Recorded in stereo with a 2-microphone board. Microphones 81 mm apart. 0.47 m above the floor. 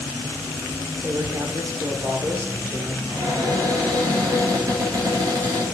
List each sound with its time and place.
1.0 s a man speaking: 35° right (ahead or behind), 1.1 m
3.1 s a cupboard door: 55° right (ahead or behind), 3 m